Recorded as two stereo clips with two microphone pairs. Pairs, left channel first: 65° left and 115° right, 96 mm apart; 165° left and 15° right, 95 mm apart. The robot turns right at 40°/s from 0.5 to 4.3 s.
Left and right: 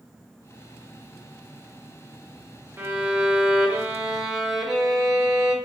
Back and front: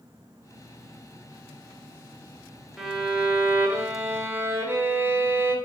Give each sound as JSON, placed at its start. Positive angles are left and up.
{"t": 2.8, "sound": "a violin", "azimuth_deg": -100, "distance_m": 0.6}